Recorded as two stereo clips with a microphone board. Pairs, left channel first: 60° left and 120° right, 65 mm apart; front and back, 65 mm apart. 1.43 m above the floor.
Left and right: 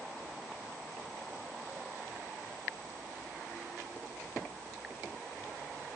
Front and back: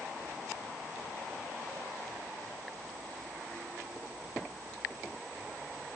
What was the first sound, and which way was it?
Only background noise.